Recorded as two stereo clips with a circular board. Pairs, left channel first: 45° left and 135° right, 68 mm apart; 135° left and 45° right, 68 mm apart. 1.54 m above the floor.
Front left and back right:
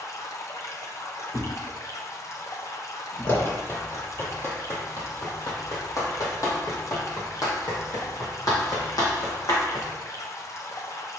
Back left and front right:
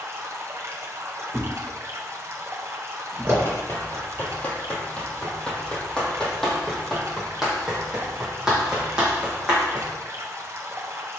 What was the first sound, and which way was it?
Running water, 5° left.